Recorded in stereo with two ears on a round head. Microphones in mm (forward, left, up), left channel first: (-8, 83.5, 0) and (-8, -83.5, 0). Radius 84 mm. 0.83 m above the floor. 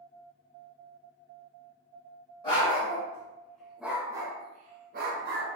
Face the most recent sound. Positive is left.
turn(degrees=-55)  # may be behind; listen again after turning